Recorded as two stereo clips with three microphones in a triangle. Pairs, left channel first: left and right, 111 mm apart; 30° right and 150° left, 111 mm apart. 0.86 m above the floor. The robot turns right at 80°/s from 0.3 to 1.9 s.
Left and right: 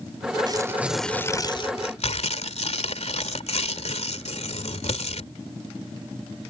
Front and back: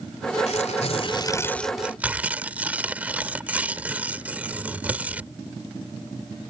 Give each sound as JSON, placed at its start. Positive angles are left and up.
{"t": 0.5, "sound": "tearing paper", "azimuth_deg": -40}